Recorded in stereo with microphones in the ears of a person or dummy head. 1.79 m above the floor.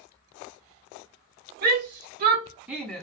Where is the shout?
55° right (ahead or behind), 0.7 m; by 3.0 s 10° left (ahead or behind), 0.6 m.